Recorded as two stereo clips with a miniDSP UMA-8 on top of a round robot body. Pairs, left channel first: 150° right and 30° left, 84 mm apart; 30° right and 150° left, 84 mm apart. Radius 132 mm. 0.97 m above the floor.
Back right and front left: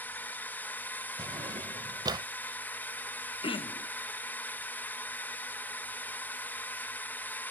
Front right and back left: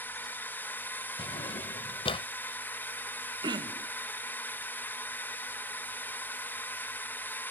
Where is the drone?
90° right.